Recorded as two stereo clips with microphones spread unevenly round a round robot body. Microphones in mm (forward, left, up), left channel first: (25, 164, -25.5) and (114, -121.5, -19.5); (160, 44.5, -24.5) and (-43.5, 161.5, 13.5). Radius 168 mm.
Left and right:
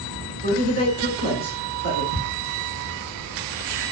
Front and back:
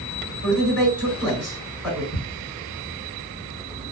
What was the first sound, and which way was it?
A man speaking, 130° right.